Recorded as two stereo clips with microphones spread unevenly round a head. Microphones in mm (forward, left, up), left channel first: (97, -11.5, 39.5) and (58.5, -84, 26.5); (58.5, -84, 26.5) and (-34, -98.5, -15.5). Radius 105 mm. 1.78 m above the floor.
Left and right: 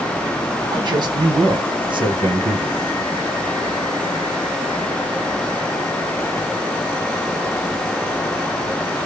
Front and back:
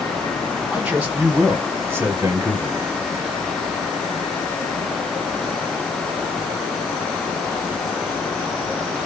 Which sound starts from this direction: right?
A man speaking, at 0.7 s.